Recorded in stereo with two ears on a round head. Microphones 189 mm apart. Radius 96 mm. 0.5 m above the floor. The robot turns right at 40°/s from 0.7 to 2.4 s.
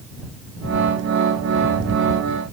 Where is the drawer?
No drawer in this recording.